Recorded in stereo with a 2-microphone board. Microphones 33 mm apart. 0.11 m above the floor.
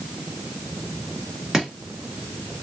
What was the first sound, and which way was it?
Chopping, 20° right (ahead or behind).